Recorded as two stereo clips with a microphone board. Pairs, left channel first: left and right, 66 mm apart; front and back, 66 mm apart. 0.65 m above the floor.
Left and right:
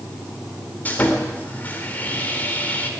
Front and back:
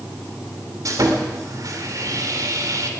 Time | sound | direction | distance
0.8 | sawing | 155° left | 2.0 m